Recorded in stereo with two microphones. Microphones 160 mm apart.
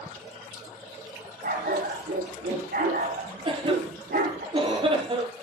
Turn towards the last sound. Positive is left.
turn(degrees=-30)  # may be behind; listen again after turning